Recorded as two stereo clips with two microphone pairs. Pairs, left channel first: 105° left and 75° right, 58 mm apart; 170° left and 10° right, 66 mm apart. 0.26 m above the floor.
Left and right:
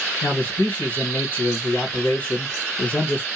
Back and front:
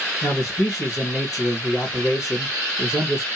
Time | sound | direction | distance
0.2 | a man speaking | 140° left | 2.5 m